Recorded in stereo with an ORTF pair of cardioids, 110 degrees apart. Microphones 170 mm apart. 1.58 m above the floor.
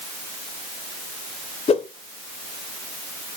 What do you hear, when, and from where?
1.7 s a whoosh: 35° left, 1.3 m